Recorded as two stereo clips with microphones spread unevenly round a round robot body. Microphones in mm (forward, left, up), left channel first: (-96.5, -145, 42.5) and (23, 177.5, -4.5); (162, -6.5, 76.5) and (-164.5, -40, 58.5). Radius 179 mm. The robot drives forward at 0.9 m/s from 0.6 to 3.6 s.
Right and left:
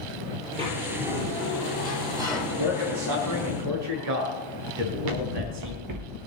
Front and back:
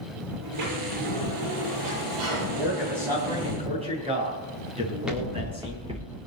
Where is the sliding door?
145° left, 7.5 m; by 3.5 s 155° left, 10 m.